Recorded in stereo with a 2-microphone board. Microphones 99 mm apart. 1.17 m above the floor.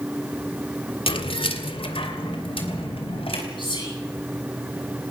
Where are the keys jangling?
70° left (ahead or behind), 1.9 m; by 3.4 s 80° left, 4.5 m.